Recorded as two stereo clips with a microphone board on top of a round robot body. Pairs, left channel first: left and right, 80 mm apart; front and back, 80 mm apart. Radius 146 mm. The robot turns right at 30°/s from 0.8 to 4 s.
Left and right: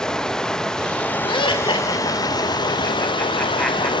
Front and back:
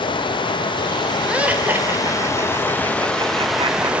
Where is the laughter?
100° left, 3 m; by 3.9 s straight behind, 3 m.